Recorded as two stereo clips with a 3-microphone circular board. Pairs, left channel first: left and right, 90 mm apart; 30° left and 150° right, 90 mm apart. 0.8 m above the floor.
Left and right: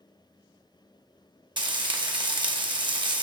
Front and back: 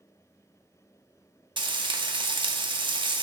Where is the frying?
120° right, 0.9 m.